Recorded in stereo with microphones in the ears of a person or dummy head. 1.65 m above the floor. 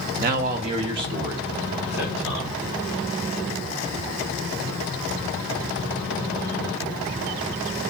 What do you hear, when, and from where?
0.2 s a man speaking: 50° right (ahead or behind), 0.8 m; by 2.6 s 5° right (ahead or behind), 1.8 m